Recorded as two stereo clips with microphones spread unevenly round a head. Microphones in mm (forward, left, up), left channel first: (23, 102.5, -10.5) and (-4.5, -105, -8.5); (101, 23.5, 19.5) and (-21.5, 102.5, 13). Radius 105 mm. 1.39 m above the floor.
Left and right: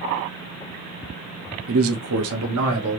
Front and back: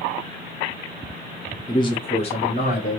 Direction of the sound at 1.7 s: 100° right.